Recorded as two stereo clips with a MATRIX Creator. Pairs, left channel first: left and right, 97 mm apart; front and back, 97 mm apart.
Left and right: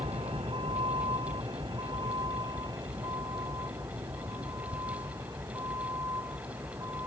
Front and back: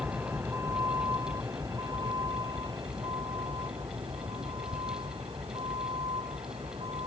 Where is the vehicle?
115° right; by 7.1 s 150° right.